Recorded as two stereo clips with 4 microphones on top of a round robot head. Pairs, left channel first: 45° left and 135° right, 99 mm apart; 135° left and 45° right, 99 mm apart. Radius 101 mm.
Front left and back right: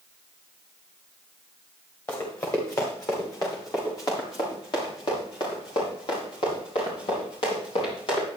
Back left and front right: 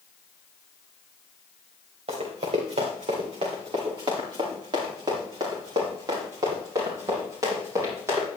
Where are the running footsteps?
20° right, 4.5 m; by 8.3 s 15° left, 8.5 m.